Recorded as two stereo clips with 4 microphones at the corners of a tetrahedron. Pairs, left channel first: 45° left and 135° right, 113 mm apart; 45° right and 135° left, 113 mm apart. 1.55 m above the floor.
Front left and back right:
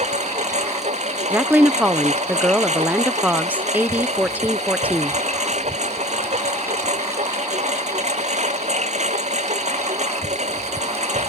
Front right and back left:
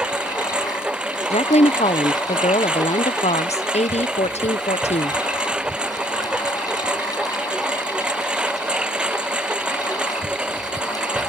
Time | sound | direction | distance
0.0 | a lawn mower | 145° right | ?
1.3 | a woman speaking | 60° right | ?